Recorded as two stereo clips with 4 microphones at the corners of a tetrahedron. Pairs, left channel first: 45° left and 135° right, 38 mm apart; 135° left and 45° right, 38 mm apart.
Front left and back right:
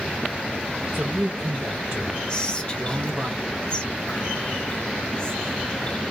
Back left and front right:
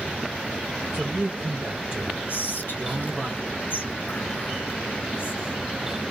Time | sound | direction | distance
0.9 | a man speaking | 100° right | 1.0 m
2.3 | whispering | 110° left | 0.7 m